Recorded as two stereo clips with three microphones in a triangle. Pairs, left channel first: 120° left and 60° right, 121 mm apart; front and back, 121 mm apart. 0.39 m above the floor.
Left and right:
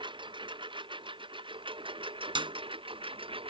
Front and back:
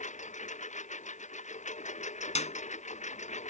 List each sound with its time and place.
0.0 s a lawn mower: 10° right; by 3.5 s 15° right
2.4 s a clap: 15° right